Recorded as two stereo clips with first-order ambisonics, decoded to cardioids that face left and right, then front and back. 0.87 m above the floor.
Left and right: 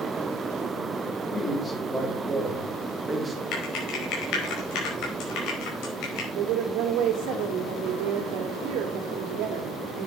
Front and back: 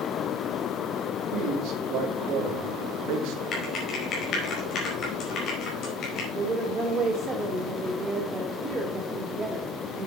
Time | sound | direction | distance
1.3 | a man speaking | 155° left | 2.5 m
3.5 | typing on a keyboard | 55° left | 4.5 m
6.3 | a woman speaking | 110° right | 1.9 m